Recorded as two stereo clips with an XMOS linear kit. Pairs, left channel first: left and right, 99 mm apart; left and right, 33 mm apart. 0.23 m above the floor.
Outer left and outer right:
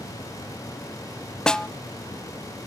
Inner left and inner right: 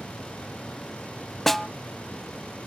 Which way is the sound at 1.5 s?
5° left (ahead or behind).